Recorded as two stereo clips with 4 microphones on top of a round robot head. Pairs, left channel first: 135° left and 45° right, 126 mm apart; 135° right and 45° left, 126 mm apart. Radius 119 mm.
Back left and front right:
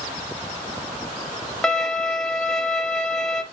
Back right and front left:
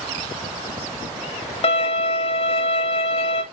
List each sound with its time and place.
1.6 s a violin: 140° right, 1.8 m